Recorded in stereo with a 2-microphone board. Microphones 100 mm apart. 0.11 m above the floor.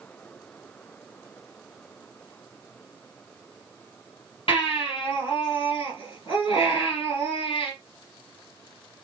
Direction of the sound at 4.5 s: 60° left (ahead or behind).